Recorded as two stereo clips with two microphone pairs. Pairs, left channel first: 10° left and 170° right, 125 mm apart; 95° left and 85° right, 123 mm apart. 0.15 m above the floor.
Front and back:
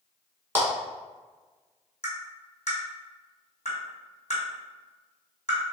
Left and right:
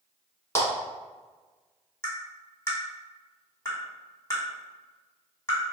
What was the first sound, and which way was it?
A clap, 140° left.